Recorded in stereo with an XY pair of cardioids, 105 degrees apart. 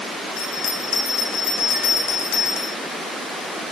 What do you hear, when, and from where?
0.4 s a bell: 70° left, 2.5 m